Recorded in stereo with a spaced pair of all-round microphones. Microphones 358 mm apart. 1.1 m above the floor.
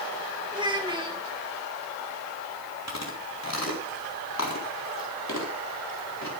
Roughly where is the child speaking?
Centre.